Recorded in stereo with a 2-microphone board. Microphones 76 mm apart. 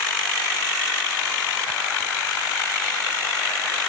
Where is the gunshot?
I don't hear a gunshot.